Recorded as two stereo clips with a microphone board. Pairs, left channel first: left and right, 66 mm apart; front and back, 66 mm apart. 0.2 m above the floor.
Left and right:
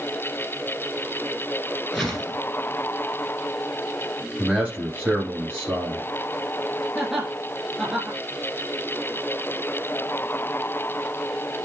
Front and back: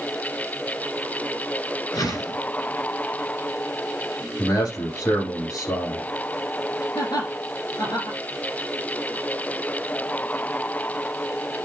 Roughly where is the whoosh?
Ahead.